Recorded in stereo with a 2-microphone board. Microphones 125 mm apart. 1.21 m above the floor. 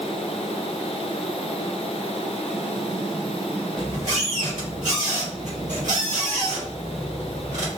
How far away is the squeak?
About 1.4 m.